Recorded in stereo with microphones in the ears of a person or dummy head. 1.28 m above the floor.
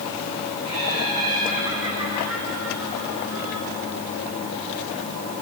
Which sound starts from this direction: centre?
Laughter, at 0.6 s.